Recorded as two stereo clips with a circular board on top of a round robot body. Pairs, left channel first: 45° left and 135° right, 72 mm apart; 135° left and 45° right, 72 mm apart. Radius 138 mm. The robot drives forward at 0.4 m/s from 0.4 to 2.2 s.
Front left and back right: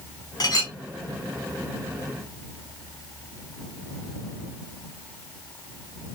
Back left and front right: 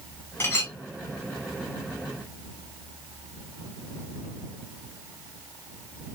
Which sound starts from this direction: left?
A clink, at 0.4 s.